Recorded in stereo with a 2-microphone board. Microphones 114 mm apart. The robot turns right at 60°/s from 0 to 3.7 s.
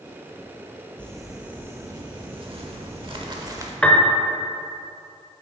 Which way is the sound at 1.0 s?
165° left.